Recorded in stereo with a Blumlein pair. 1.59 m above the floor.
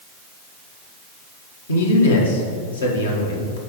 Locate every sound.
1.7 s a man speaking: 70° left, 1.5 m